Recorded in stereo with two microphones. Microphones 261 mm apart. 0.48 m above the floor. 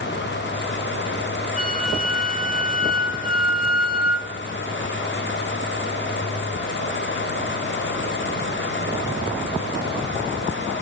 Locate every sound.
1.6 s a flute: 30° left (ahead or behind), 1.1 m